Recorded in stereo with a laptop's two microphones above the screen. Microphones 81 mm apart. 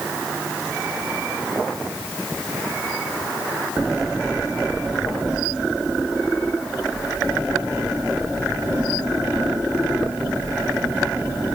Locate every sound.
Only background noise.